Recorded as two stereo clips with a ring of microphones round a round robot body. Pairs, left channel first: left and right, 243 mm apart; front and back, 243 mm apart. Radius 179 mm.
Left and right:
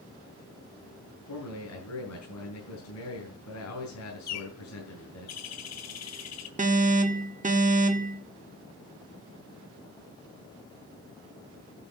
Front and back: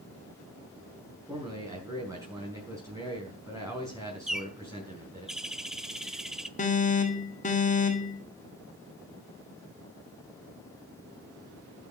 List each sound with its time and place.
1.3 s a man speaking: 105° left, 5 m
4.3 s a bird: 90° left, 1.4 m
6.6 s an alarm: 45° right, 1.7 m